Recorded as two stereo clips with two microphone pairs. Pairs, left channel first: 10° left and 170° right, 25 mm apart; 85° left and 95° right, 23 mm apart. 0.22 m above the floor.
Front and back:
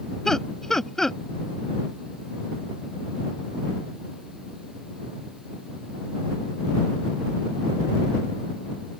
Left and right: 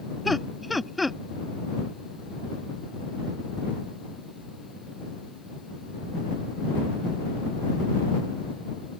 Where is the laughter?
5° right.